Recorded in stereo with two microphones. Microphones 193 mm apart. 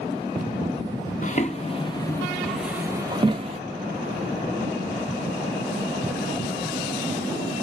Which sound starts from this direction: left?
Footsteps, at 1.2 s.